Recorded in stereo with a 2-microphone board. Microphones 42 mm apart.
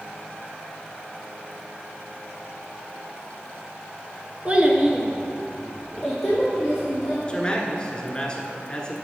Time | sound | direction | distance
4.5 | a child speaking | 25° right (ahead or behind) | 0.9 m
7.3 | a man speaking | 20° left (ahead or behind) | 1.3 m